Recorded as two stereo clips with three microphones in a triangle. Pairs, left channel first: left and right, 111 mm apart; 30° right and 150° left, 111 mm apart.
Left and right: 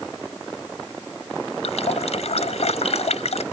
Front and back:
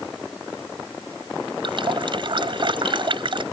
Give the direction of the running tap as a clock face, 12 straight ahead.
8 o'clock.